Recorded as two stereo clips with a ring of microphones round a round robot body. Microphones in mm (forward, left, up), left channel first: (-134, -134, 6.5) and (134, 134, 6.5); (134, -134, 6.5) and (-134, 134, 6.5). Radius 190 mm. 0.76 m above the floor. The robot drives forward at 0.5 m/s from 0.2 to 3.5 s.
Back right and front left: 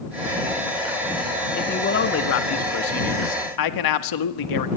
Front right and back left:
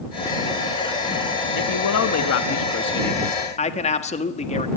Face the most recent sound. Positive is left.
turn(degrees=-115)